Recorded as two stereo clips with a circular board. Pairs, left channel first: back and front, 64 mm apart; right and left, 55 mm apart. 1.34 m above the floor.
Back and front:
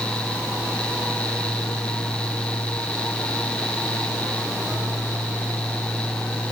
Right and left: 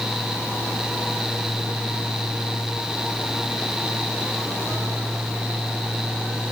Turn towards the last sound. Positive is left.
No sound to turn to.